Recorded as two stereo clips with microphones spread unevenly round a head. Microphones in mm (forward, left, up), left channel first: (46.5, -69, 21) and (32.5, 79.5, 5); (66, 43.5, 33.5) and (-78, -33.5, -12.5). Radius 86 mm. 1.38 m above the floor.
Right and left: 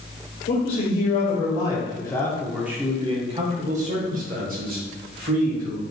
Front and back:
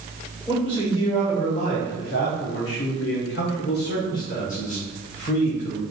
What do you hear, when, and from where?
0.5 s a man speaking: 55° right, 1.4 m; by 5.8 s 85° left, 2 m